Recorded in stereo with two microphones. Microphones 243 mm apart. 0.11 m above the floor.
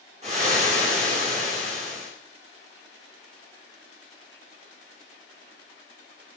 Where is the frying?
25° right (ahead or behind), 5 m.